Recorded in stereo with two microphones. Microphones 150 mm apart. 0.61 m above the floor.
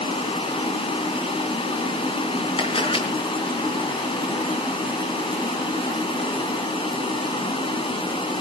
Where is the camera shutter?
35° left (ahead or behind), 4 m.